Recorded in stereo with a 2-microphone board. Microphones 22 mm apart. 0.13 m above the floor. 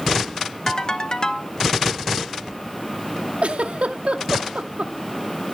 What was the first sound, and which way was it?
A ringtone, 30° left (ahead or behind).